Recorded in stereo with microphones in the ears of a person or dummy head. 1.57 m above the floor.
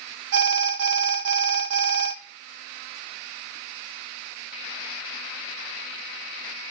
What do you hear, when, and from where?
0.3 s an alarm: 65° right (ahead or behind), 0.6 m